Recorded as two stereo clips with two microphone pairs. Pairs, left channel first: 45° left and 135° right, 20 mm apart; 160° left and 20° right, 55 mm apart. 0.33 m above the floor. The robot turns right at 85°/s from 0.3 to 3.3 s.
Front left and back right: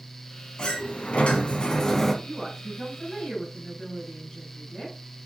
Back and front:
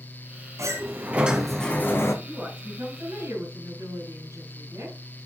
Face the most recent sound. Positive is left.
turn(degrees=-10)